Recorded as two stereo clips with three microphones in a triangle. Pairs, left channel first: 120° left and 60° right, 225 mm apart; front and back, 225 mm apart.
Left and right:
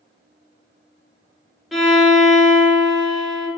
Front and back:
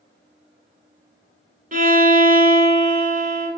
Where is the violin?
150° right, 0.7 m.